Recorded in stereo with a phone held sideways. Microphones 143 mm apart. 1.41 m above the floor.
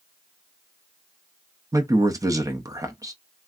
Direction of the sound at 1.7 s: 25° right (ahead or behind).